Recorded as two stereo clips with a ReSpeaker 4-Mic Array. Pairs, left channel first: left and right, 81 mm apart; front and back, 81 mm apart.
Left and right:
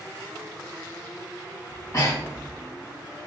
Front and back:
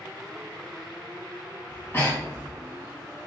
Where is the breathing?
50° left, 1.8 m.